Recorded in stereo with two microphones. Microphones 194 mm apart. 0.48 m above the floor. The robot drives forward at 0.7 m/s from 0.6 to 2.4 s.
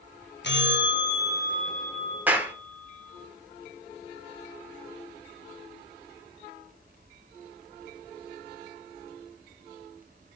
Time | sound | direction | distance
0.4 | a bell | 65° left (ahead or behind) | 0.6 m
2.3 | a clap | 10° right (ahead or behind) | 1.0 m